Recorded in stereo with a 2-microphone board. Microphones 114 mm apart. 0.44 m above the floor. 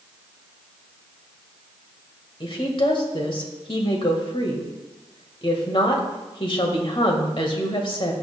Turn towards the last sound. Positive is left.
turn(degrees=45)  # may be behind; listen again after turning